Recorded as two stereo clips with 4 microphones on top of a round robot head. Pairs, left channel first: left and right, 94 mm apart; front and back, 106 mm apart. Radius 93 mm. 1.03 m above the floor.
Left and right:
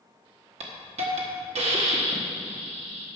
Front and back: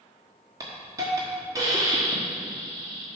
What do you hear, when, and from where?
0.6 s a hiss: 110° right, 1.3 m